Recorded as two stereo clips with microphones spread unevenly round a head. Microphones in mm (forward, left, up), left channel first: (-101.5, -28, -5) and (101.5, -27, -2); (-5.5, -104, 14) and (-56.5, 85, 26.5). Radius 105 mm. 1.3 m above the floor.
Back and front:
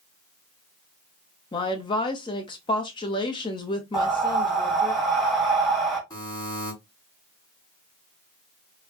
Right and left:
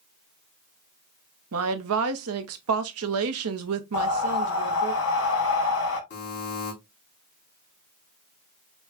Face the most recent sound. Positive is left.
turn(degrees=-105)